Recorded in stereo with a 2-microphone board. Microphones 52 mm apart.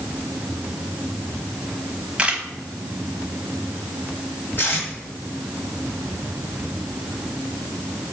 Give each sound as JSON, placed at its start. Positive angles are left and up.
{"t": 2.2, "sound": "a camera shutter", "side_deg": -20, "distance_m": 1.0}
{"t": 4.6, "sound": "tape being pulled", "side_deg": 45, "distance_m": 2.0}